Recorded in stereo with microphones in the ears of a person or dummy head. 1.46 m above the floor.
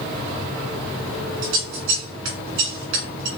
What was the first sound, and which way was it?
Scissors, 80° right.